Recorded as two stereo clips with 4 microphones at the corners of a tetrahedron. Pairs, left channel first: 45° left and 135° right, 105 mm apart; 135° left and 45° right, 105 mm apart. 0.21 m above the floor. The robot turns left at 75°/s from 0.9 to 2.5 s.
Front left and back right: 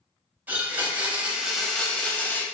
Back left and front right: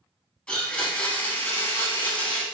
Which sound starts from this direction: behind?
A blender, at 0.5 s.